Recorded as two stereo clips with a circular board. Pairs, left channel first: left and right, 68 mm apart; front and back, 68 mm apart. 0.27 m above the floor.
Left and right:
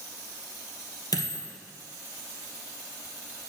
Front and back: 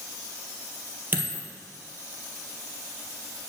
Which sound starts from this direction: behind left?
A dropped coin, at 1.1 s.